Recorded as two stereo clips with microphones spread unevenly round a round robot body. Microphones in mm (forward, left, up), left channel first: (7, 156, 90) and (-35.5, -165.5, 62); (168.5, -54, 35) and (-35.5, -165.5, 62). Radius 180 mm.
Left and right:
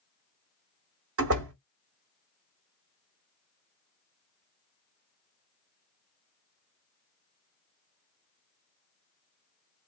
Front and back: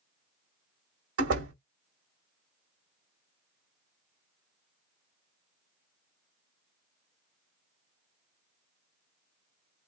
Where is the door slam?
140° right, 1.9 m.